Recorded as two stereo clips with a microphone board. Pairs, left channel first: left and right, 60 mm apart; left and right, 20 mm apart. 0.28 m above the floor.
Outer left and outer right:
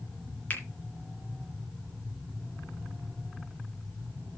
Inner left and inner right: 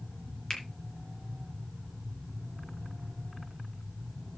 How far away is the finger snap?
About 2.5 m.